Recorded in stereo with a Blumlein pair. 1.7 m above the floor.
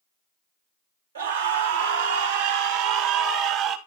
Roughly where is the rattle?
No rattle in this recording.